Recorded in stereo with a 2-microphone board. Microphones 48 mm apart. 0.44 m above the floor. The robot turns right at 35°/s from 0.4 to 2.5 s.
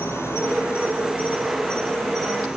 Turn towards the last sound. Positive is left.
turn(degrees=-170)